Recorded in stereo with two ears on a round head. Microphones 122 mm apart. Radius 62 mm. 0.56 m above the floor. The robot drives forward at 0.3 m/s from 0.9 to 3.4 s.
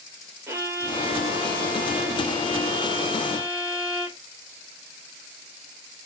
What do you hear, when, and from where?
0.5 s a violin: 20° right (ahead or behind), 1.2 m; by 4.2 s 10° right (ahead or behind), 1.9 m